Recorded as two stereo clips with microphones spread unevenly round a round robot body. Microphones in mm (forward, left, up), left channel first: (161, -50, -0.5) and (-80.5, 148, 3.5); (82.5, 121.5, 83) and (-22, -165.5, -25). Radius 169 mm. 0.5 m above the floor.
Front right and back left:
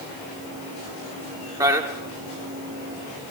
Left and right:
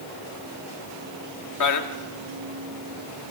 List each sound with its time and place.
1.6 s a man speaking: 70° left, 1.3 m